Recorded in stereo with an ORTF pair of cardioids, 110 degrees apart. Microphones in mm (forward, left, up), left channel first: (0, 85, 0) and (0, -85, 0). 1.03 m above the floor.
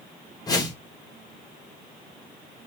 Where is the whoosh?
20° left, 0.9 m.